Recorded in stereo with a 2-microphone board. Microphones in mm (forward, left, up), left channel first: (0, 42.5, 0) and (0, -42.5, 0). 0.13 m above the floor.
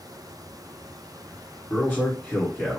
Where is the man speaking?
25° left (ahead or behind), 1.8 m.